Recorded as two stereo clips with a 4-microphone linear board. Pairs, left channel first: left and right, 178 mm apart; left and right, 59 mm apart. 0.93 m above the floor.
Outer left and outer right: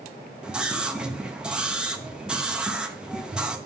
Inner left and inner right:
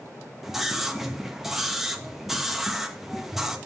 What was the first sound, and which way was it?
A scream, 5° right (ahead or behind).